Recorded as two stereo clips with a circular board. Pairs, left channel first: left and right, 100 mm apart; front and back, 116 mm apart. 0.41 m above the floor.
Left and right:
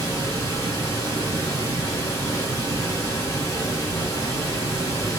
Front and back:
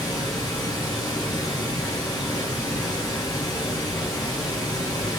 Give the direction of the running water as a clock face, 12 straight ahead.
10 o'clock.